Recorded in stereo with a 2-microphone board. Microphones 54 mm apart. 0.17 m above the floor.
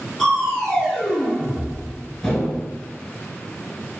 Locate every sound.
0.2 s crushing: 5° left (ahead or behind), 0.7 m